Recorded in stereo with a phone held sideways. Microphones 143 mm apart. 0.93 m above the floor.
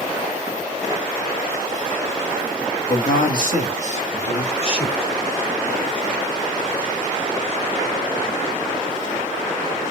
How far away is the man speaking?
About 1.3 m.